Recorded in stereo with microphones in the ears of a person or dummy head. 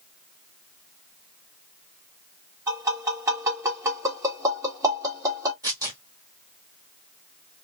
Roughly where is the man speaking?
I don't hear a man speaking.